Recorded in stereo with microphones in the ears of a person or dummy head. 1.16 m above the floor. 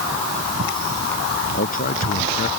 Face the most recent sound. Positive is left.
turn(degrees=50)  # may be behind; listen again after turning